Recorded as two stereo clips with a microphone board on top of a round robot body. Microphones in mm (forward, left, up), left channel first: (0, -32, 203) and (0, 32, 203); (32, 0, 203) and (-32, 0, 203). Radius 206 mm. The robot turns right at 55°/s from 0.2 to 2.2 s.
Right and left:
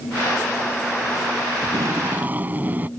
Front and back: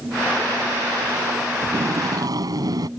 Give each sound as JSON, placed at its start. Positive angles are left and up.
{"t": 1.6, "sound": "tape being pulled", "azimuth_deg": 120}